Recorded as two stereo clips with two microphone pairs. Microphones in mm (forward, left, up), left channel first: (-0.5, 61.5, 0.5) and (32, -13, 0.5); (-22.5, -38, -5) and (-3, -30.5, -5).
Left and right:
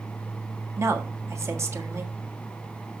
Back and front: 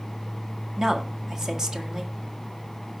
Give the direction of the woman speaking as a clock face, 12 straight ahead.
1 o'clock.